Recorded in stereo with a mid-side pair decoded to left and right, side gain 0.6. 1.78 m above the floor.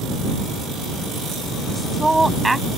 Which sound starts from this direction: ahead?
A woman speaking, at 1.7 s.